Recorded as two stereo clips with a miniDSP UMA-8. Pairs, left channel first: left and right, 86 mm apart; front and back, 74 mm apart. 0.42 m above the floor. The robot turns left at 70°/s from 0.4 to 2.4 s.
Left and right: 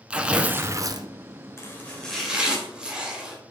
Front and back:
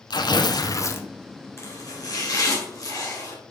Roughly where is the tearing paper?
Ahead.